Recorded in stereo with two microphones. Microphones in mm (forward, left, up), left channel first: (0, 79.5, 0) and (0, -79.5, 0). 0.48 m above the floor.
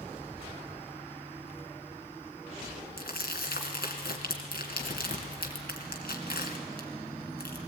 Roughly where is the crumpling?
Left.